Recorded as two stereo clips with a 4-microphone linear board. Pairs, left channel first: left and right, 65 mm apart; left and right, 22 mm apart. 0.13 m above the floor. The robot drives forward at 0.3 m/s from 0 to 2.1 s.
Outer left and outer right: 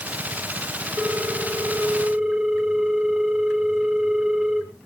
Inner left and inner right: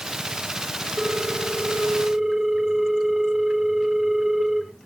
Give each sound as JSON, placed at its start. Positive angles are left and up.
{"t": 1.0, "sound": "a ringtone", "side_deg": -10, "distance_m": 1.2}